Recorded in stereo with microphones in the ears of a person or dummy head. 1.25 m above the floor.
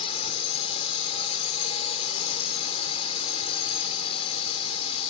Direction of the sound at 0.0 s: 35° left (ahead or behind).